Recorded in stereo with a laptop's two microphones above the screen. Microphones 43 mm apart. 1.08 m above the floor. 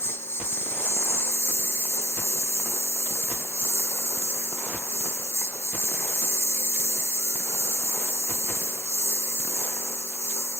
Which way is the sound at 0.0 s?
65° left (ahead or behind).